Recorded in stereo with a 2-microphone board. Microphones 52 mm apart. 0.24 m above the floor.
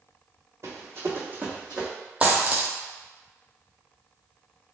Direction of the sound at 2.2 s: 25° right (ahead or behind).